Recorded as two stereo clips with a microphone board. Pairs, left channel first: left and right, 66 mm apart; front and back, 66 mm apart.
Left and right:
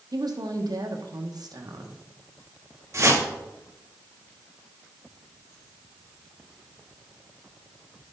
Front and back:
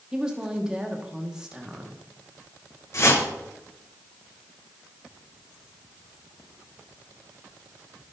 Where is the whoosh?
45° right, 1.7 m.